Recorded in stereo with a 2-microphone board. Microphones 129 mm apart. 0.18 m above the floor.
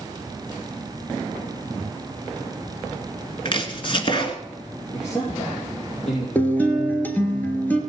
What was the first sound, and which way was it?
Chopping, 40° left (ahead or behind).